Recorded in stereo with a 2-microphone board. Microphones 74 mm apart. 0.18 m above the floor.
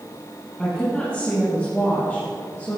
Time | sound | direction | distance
0.6 | a woman speaking | 15° left (ahead or behind) | 5 m